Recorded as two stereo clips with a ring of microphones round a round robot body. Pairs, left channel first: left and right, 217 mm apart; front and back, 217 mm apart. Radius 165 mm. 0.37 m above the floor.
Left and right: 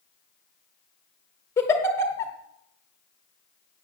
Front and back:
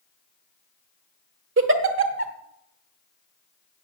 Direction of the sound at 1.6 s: 170° left.